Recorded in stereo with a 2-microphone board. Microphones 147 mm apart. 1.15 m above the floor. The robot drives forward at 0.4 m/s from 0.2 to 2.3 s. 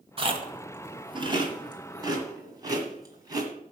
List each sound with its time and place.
0.2 s chewing: 40° right (ahead or behind), 1.2 m; by 3.5 s 25° right (ahead or behind), 1.7 m